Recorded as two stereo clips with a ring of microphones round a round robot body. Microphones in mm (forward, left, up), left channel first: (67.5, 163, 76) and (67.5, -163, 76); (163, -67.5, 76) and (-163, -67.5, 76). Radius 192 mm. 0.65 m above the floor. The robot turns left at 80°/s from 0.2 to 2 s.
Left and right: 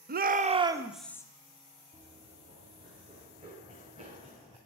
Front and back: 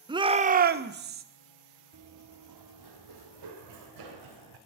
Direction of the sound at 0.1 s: 115° right.